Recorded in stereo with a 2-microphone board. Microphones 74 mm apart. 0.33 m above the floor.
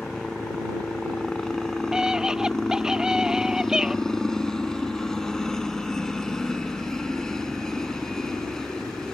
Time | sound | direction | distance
0.0 | a helicopter | 5° left (ahead or behind) | ?
1.9 | a scream | 10° right (ahead or behind) | ?